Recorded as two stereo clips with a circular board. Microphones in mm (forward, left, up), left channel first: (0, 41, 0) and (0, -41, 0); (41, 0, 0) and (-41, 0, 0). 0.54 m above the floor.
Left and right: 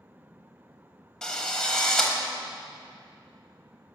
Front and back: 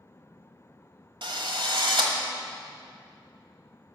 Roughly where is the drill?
Behind.